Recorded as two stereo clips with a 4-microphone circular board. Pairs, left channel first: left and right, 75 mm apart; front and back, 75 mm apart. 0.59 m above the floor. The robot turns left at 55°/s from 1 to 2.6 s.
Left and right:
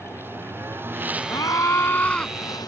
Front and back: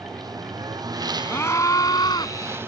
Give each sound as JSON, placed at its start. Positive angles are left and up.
{"t": 0.0, "sound": "a lawn mower", "azimuth_deg": -150}
{"t": 1.3, "sound": "a scream", "azimuth_deg": 65}